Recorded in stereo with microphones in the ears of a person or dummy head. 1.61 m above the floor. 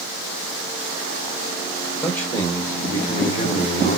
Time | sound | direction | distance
2.0 | a man speaking | 15° left (ahead or behind) | 1.5 m